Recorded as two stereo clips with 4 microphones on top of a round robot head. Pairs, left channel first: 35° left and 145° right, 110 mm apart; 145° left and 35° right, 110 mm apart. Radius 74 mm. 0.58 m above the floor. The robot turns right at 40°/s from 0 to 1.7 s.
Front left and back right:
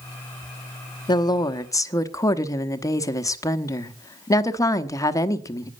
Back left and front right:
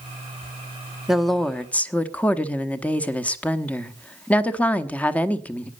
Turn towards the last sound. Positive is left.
turn(degrees=75)